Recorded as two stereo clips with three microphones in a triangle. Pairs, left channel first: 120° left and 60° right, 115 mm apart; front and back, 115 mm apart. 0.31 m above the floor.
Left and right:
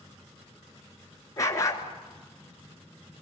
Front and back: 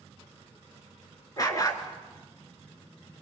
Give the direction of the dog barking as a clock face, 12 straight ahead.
10 o'clock.